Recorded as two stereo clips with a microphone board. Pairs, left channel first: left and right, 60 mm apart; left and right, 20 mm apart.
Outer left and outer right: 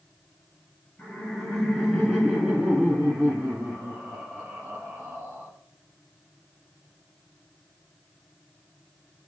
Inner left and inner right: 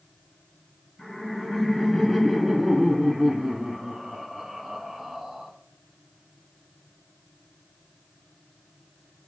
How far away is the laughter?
About 2.5 m.